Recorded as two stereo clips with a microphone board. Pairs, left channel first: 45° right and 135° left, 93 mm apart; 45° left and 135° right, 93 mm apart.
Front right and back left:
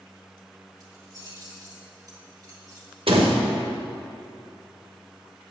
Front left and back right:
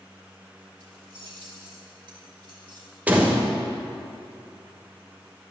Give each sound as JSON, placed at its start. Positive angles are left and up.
{"t": 0.8, "sound": "keys jangling", "azimuth_deg": -170, "distance_m": 2.5}
{"t": 3.1, "sound": "a door slam", "azimuth_deg": 150, "distance_m": 1.2}